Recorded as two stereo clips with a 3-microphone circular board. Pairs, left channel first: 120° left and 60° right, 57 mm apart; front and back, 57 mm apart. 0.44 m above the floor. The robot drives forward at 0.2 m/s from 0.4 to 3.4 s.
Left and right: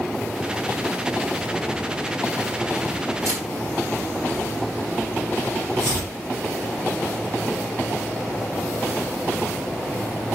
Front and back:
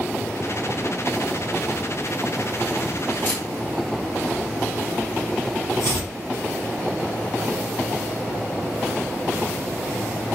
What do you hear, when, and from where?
3.2 s a camera shutter: 55° right, 1.9 m
5.8 s chopping: 40° right, 3 m